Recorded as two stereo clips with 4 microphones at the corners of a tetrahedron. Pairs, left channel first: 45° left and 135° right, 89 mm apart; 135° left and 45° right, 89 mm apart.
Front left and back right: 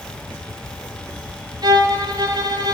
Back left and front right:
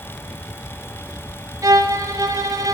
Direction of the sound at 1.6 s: 95° right.